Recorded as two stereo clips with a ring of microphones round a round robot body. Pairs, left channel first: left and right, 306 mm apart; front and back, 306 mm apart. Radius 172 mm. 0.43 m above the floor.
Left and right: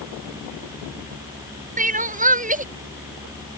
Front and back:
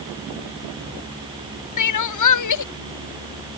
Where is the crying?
25° right.